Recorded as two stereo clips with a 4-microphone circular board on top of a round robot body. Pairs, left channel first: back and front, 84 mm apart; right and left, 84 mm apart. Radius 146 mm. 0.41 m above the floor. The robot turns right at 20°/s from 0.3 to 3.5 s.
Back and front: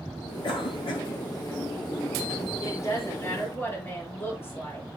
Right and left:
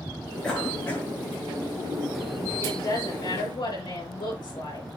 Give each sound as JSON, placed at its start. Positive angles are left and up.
{"t": 0.4, "sound": "a cough", "azimuth_deg": -170, "distance_m": 7.5}
{"t": 2.6, "sound": "a woman speaking", "azimuth_deg": -130, "distance_m": 7.5}